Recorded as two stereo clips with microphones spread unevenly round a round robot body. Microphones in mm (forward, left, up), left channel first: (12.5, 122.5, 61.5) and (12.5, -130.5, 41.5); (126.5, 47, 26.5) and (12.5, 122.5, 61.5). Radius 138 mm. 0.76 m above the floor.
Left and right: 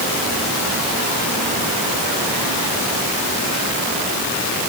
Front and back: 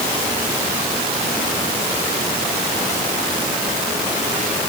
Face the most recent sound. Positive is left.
No sound to turn to.